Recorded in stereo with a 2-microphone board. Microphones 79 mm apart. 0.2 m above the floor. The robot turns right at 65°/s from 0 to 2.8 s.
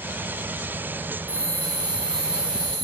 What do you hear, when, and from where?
1.3 s a bell: 150° right, 5.5 m; by 2.9 s 50° right, 5.5 m